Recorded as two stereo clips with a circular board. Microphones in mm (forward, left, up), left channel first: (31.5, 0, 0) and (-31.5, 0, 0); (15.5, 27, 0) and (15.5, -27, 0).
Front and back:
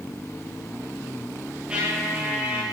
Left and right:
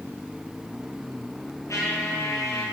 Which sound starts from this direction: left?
A trumpet, at 1.7 s.